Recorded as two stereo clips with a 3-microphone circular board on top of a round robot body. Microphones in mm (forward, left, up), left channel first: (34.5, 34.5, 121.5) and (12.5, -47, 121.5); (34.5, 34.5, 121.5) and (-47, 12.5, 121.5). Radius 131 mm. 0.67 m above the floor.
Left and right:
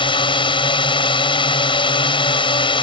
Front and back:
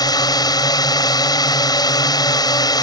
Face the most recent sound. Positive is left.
turn(degrees=55)